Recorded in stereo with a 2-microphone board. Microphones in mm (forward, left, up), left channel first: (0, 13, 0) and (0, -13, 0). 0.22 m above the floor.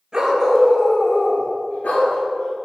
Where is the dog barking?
25° right (ahead or behind), 1.7 m; by 2.5 s 80° left, 2.5 m.